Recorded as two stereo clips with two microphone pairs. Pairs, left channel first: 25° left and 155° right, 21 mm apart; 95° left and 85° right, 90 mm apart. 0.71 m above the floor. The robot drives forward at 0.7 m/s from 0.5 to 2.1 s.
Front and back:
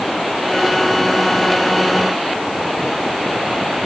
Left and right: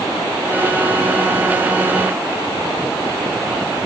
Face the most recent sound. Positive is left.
No sound to turn to.